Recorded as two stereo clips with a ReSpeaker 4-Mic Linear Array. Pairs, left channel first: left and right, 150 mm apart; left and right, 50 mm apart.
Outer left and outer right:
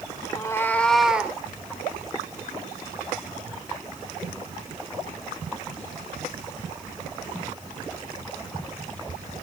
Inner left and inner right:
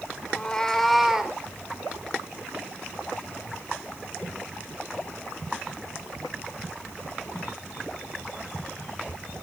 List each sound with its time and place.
0.3 s a cat meowing: 25° left (ahead or behind), 2.5 m; by 1.4 s 15° right (ahead or behind), 2.5 m